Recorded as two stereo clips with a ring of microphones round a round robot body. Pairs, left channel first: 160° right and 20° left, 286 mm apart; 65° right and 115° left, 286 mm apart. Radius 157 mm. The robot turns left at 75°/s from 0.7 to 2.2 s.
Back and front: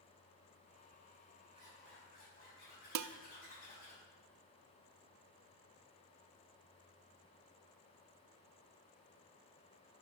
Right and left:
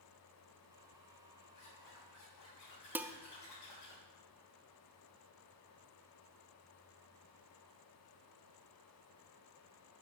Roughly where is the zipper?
Ahead right.